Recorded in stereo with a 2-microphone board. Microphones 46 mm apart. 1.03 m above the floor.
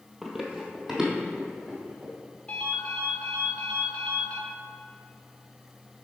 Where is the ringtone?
30° left (ahead or behind), 1.7 m.